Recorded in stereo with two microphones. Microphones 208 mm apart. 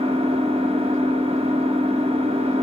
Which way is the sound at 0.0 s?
30° right (ahead or behind).